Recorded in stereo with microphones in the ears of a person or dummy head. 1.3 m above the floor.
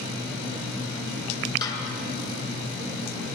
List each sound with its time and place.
1.6 s a snare drum: 20° left (ahead or behind), 2.5 m